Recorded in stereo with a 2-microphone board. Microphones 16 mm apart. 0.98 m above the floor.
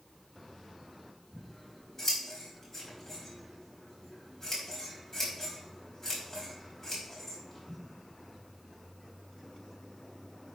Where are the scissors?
20° left (ahead or behind), 4.5 m.